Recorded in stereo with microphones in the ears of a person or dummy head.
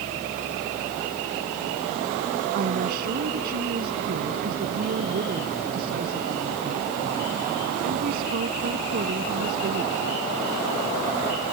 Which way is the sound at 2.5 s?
55° right (ahead or behind).